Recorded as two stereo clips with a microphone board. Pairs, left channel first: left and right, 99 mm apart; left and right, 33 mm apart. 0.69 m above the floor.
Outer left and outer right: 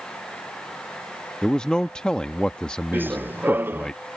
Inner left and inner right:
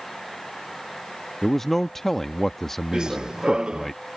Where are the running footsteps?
20° right (ahead or behind).